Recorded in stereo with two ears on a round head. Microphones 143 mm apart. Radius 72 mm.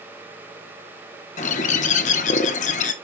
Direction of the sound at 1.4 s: 45° left (ahead or behind).